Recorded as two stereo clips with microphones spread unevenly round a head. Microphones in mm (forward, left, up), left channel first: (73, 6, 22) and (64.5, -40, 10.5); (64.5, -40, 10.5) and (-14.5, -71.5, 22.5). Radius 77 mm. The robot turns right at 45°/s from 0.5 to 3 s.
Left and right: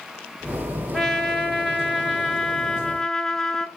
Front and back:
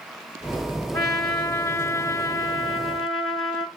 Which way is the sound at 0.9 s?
30° left.